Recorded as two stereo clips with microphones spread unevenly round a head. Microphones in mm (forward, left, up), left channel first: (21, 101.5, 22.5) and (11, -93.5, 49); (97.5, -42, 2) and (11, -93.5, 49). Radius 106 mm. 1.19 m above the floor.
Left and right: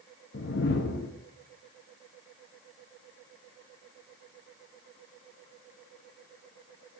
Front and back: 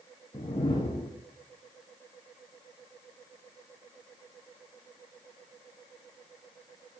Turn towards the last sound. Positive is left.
turn(degrees=110)